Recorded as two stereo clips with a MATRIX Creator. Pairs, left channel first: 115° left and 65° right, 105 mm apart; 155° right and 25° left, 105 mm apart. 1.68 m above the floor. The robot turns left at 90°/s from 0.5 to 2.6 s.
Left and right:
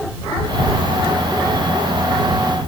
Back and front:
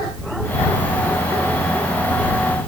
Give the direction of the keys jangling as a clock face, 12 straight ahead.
No keys jangling in this recording.